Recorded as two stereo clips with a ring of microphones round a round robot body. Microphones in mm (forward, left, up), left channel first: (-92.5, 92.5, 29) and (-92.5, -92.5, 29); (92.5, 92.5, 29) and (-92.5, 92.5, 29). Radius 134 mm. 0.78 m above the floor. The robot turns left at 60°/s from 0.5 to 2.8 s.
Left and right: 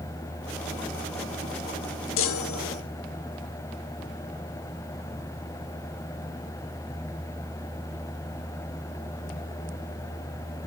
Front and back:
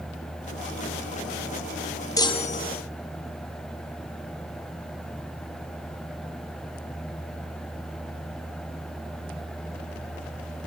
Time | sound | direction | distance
2.2 | a chime | 75° left | 0.9 m